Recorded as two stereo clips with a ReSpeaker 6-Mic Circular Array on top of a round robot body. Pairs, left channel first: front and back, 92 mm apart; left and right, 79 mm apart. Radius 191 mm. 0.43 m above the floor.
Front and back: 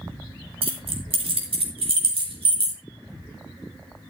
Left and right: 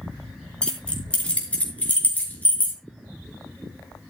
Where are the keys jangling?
170° left, 4.5 m; by 2.8 s 160° left, 5.5 m.